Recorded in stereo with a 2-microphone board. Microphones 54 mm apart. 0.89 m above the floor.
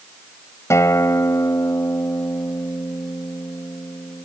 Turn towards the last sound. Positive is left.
turn(degrees=65)  # may be behind; listen again after turning